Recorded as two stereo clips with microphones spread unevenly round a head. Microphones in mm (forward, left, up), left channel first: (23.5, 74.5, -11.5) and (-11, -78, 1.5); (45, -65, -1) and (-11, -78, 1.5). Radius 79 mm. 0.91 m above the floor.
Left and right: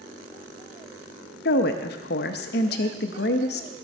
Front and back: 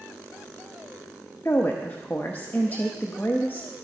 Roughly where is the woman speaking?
Left.